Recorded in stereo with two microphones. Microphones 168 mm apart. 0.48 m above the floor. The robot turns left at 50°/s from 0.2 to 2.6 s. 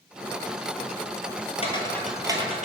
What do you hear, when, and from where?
1.6 s footsteps: 40° left (ahead or behind), 0.6 m; by 2.6 s 50° right (ahead or behind), 0.7 m